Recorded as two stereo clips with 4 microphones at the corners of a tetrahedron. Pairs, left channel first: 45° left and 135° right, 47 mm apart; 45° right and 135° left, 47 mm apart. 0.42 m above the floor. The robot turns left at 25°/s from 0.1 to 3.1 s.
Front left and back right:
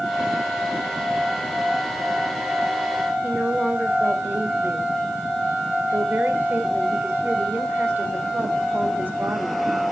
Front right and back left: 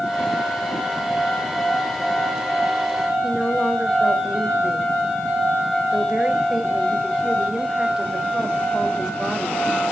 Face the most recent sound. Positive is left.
turn(degrees=-155)